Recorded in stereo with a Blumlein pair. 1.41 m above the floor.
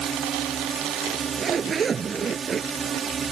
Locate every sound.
0.0 s a drone: 20° right
1.1 s a zipper: 20° right